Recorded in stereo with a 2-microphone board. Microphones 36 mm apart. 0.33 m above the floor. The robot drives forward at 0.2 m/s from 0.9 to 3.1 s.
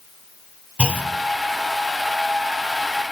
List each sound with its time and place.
0.8 s a clunk: 40° right (ahead or behind), 1.3 m